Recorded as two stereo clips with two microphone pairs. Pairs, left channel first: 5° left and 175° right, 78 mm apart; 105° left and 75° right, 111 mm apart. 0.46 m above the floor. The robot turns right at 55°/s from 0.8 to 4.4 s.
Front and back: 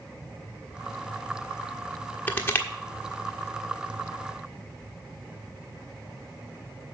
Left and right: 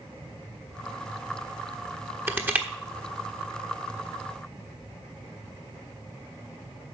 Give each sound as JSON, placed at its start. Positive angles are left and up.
{"t": 2.3, "sound": "crushing", "azimuth_deg": -30, "distance_m": 1.3}